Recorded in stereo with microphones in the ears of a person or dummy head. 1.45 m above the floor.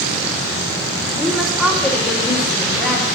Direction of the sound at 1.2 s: Centre (ahead or behind).